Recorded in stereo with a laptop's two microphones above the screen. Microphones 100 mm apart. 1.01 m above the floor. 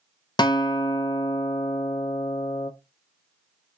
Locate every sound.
0.4 s a guitar: 45° left (ahead or behind), 0.5 m